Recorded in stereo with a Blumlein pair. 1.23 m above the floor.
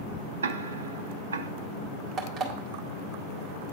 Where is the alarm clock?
20° right, 1.8 m.